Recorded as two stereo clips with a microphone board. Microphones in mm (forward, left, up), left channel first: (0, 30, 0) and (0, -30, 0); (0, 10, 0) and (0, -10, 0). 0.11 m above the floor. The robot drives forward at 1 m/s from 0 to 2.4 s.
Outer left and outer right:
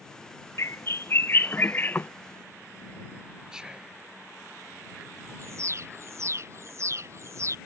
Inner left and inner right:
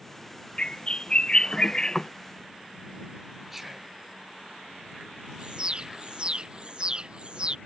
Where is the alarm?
55° right (ahead or behind).